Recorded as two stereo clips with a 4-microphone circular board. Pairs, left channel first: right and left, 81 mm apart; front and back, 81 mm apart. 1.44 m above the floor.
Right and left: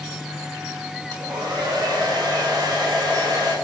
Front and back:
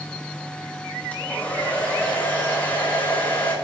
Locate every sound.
1.1 s a hair dryer: 65° left, 4 m